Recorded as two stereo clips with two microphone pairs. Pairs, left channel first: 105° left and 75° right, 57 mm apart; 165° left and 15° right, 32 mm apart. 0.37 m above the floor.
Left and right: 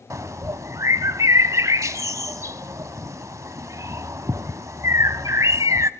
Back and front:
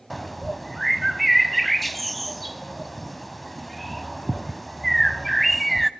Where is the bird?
100° right, 0.6 m.